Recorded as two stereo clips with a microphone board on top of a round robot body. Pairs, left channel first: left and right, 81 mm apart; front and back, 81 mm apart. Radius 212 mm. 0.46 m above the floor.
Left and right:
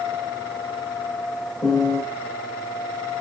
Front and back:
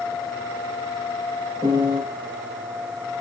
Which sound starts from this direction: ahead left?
A piano, at 1.6 s.